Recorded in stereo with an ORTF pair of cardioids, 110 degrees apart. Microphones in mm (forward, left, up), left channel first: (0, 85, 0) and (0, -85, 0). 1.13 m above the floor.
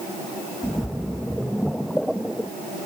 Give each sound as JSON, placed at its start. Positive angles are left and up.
{"t": 0.6, "sound": "a splash", "azimuth_deg": 0}